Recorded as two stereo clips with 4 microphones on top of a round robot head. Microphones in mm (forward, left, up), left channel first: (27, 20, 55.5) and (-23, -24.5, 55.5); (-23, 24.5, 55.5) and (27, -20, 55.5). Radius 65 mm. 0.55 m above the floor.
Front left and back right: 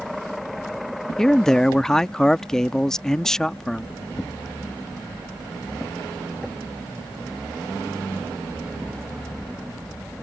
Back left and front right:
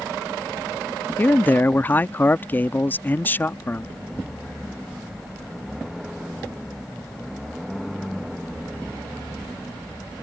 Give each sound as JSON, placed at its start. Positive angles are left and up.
{"t": 1.2, "sound": "a man speaking", "azimuth_deg": 115}